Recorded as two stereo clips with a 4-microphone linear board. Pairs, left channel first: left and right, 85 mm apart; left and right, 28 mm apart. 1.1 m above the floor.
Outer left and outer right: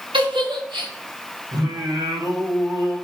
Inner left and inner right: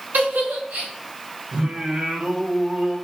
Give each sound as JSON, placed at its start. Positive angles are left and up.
{"t": 0.1, "sound": "a giggle", "side_deg": -80, "distance_m": 4.5}
{"t": 1.5, "sound": "singing", "side_deg": -45, "distance_m": 3.0}